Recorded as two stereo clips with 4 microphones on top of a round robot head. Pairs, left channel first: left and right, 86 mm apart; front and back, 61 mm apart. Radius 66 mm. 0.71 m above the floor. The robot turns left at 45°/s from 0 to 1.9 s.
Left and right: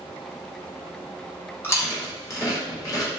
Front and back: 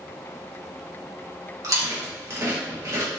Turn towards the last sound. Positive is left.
turn(degrees=140)